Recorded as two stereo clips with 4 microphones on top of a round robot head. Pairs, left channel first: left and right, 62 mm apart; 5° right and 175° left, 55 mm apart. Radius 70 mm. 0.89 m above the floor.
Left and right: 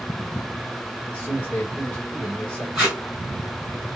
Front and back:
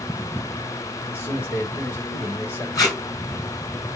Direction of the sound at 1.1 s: 30° left.